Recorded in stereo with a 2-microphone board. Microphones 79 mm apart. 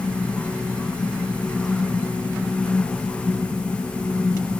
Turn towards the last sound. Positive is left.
No sound to turn to.